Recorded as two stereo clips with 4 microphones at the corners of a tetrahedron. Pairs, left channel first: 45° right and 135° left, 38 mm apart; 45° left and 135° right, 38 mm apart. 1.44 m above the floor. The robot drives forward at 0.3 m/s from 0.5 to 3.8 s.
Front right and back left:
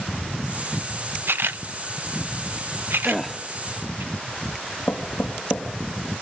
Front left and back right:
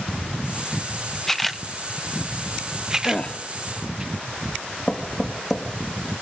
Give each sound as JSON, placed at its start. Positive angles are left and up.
{"t": 1.3, "sound": "a camera shutter", "azimuth_deg": 125, "distance_m": 0.6}
{"t": 3.0, "sound": "a gasp", "azimuth_deg": 40, "distance_m": 1.0}
{"t": 4.9, "sound": "knocking", "azimuth_deg": -30, "distance_m": 2.0}